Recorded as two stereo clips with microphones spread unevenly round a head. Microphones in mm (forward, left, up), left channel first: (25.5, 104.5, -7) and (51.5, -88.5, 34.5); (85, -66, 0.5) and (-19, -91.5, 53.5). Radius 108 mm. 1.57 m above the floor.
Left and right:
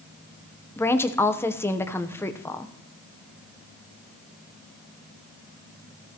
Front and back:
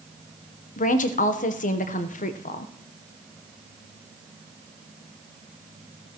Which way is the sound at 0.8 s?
15° left.